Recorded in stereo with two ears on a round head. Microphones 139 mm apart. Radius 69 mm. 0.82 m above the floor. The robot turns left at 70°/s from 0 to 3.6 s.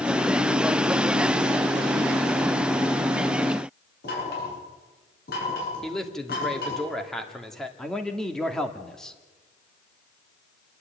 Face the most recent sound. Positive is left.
turn(degrees=5)  # may be behind; listen again after turning